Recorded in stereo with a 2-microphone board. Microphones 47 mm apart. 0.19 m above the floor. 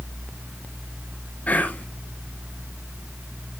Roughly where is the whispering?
Left.